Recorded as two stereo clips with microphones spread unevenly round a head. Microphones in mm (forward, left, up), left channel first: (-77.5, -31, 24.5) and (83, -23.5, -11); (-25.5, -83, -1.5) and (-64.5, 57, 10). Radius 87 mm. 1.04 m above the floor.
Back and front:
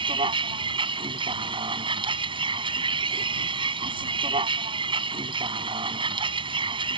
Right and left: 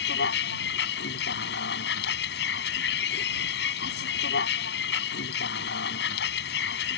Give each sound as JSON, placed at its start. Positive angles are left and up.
{"t": 0.0, "sound": "a vehicle", "azimuth_deg": -60}